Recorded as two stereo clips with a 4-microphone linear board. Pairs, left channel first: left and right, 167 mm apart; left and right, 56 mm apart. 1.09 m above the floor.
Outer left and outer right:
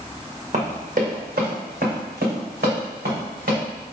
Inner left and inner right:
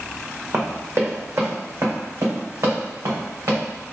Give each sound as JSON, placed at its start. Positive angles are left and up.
{"t": 0.5, "sound": "running footsteps", "side_deg": -50, "distance_m": 1.8}